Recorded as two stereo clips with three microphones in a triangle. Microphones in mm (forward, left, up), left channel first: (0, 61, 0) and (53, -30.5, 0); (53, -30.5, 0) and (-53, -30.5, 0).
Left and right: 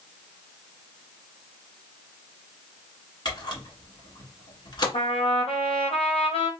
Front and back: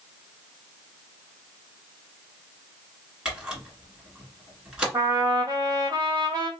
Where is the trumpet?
130° left, 1.6 m.